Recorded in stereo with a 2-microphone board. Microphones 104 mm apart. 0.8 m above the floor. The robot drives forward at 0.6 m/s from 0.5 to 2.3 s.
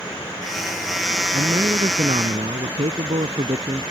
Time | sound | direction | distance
1.3 | a man speaking | 85° right | ?